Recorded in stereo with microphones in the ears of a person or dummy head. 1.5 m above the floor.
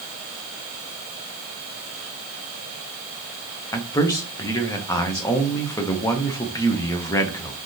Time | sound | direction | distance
3.7 | a man speaking | 15° left (ahead or behind) | 0.6 m